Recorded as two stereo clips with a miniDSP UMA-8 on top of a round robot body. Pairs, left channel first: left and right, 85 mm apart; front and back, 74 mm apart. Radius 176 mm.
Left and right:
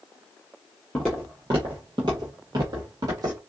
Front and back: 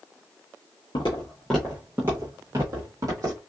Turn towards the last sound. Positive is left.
turn(degrees=-140)